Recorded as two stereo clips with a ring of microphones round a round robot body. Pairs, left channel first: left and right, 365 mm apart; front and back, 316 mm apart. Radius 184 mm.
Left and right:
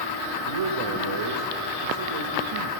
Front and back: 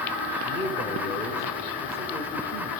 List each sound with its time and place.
0.4 s a man speaking: 100° right, 1.6 m